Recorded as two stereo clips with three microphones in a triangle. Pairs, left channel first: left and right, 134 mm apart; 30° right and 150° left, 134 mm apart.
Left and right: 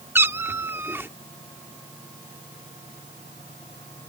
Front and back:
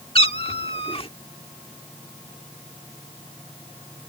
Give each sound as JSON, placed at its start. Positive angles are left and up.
{"t": 0.1, "sound": "a cat meowing", "azimuth_deg": -25}